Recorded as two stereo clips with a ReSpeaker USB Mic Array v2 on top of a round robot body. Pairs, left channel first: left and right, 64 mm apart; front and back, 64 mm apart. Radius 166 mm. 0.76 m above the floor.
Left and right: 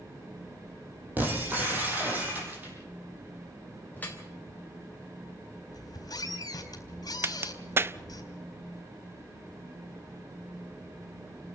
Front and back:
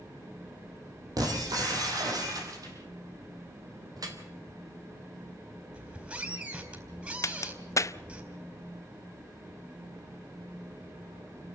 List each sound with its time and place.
1.2 s breaking glass: 155° right, 6.5 m
4.0 s dripping: 155° left, 4 m
5.7 s a squeak: 110° left, 4.5 m
7.2 s a crack: 40° right, 0.8 m